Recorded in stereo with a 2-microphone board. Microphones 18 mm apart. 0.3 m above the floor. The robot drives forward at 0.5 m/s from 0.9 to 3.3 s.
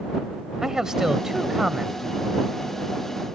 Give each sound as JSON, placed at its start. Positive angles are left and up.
{"t": 0.6, "sound": "a man speaking", "side_deg": -30}